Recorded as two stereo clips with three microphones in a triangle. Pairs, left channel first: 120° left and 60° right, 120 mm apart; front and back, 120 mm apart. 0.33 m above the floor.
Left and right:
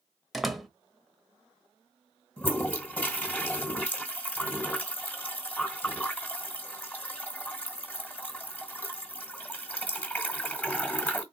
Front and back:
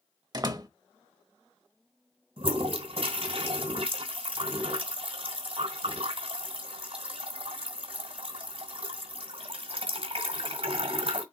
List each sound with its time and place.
0.3 s a door slam: 150° right, 0.8 m
2.4 s a toilet flushing: 165° right, 1.9 m